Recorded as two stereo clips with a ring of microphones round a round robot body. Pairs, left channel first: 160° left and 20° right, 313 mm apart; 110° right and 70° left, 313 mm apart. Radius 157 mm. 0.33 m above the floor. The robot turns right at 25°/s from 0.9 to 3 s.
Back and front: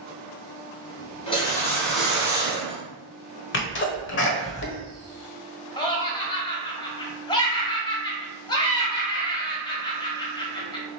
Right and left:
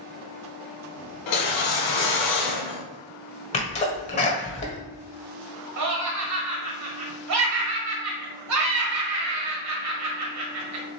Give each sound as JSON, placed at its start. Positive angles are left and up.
{"t": 1.3, "sound": "a whoosh", "azimuth_deg": -130, "distance_m": 1.7}
{"t": 3.5, "sound": "a sneeze", "azimuth_deg": -170, "distance_m": 1.4}
{"t": 5.8, "sound": "laughter", "azimuth_deg": 85, "distance_m": 1.4}